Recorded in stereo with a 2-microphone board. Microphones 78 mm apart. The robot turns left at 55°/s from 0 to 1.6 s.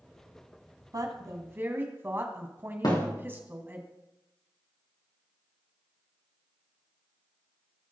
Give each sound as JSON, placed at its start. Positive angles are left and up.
{"t": 0.9, "sound": "a woman speaking", "azimuth_deg": -110, "distance_m": 1.7}
{"t": 2.8, "sound": "a thud", "side_deg": 60, "distance_m": 3.5}